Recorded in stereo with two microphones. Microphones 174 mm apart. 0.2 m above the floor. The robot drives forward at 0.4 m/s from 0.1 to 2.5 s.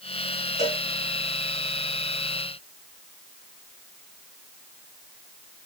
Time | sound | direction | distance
0.6 | a cowbell | 40° left (ahead or behind) | 2 m